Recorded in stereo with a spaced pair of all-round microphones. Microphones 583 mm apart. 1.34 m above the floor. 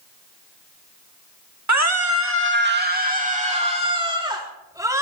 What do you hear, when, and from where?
1.7 s a scream: 30° right (ahead or behind), 1.9 m; by 5.0 s 5° right (ahead or behind), 4 m